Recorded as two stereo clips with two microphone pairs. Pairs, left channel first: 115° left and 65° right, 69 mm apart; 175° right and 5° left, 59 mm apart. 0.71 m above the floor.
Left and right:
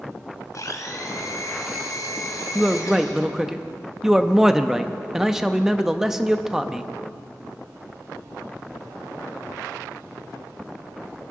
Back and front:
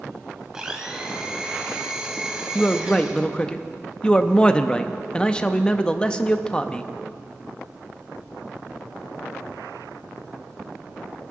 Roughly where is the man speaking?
Behind right.